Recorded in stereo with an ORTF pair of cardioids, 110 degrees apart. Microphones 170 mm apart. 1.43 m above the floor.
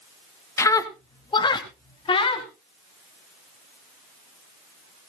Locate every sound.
0.6 s a scream: 15° left, 1.6 m; by 2.5 s 35° left, 4 m